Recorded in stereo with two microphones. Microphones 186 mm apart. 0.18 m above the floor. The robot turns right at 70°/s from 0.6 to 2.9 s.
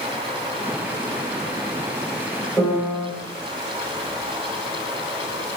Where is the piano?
10° left (ahead or behind), 1.8 m; by 3.1 s 10° right (ahead or behind), 1.8 m.